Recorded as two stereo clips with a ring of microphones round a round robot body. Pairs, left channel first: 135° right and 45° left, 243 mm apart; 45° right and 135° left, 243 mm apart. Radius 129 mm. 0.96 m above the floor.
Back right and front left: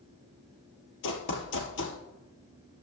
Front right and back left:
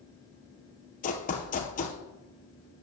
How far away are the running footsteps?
About 1.7 m.